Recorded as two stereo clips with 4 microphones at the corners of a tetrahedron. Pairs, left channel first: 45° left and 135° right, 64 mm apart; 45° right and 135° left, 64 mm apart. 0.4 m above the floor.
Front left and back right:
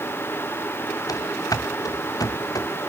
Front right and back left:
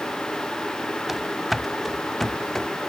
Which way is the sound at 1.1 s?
50° left.